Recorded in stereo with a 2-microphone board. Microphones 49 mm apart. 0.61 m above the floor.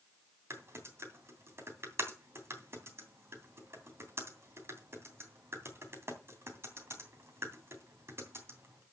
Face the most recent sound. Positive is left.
turn(degrees=-60)  # may be behind; listen again after turning